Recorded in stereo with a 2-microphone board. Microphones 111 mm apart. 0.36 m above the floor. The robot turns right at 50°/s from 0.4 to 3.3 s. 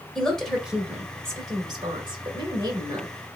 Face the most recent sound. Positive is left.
turn(degrees=-40)